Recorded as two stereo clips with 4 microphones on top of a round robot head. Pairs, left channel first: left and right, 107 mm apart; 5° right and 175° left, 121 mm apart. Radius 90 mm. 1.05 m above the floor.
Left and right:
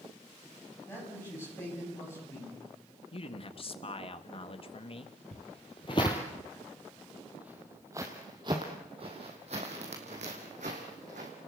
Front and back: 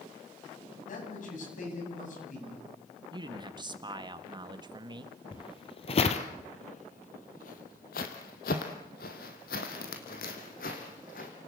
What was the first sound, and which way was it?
A man speaking, 15° left.